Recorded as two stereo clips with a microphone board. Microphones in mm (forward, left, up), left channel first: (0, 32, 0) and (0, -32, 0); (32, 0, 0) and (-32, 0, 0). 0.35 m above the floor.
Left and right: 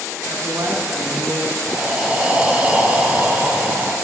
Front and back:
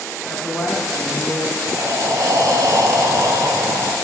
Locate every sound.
0.3 s a man speaking: 80° right, 3 m
1.7 s breathing: 160° right, 1.1 m